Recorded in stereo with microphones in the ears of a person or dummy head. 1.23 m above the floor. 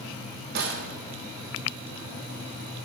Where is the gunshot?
65° right (ahead or behind), 1.3 m.